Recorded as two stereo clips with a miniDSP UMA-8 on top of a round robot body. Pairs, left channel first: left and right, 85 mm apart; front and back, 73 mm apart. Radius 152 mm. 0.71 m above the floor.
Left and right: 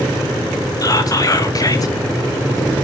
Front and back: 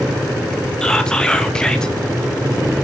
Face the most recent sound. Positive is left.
turn(degrees=75)